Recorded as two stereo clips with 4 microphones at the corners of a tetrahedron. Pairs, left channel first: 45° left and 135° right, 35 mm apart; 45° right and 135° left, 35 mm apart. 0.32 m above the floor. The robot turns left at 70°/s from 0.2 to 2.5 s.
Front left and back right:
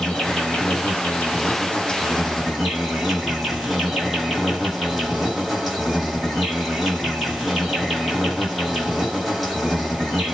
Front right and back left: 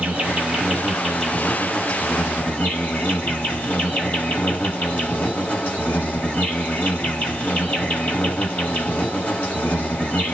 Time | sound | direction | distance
0.0 | an insect | 110° left | 1.4 m